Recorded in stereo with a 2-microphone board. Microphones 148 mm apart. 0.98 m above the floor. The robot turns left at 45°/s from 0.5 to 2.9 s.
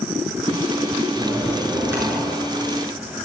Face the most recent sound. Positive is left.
turn(degrees=-60)